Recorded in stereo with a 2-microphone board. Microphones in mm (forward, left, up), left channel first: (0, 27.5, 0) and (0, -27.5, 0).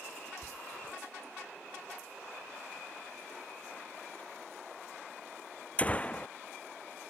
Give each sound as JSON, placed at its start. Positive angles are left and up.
{"t": 0.4, "sound": "a door slam", "side_deg": 25}